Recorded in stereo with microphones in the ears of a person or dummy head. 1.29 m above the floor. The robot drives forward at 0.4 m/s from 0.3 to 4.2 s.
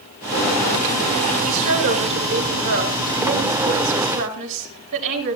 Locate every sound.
1.4 s a woman speaking: 75° right (ahead or behind), 6.5 m; by 5.4 s 65° right (ahead or behind), 7 m